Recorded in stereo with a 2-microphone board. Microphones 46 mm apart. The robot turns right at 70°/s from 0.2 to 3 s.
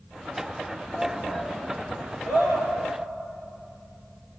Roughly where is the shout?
Left.